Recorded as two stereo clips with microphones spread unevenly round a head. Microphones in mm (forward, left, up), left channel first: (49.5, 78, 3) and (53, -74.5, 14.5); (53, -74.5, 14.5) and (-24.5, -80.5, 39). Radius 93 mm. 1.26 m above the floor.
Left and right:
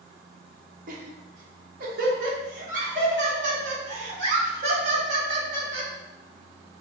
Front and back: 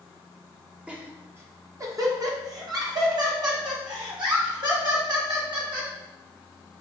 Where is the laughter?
85° right, 0.7 m; by 5.9 s 150° right, 3 m.